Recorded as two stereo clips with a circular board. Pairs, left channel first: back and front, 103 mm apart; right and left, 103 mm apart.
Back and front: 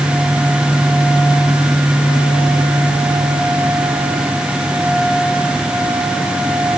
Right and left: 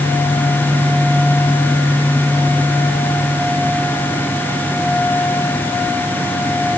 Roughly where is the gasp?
I don't hear a gasp.